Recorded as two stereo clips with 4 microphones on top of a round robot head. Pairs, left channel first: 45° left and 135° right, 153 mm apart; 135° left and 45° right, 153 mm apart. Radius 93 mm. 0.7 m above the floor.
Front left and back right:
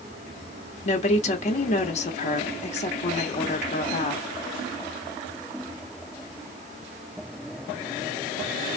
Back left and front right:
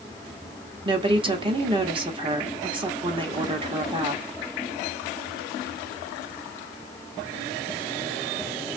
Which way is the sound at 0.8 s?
10° left.